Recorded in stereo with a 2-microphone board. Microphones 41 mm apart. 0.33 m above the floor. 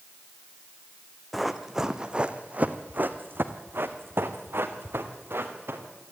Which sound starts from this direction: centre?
Running footsteps, at 1.3 s.